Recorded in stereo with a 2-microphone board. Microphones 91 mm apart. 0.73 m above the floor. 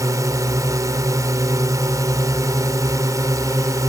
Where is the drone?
35° right (ahead or behind).